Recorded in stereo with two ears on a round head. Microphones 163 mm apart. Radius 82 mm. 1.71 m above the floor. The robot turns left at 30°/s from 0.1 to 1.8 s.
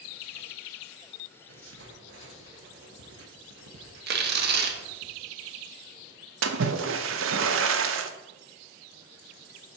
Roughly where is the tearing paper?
Right.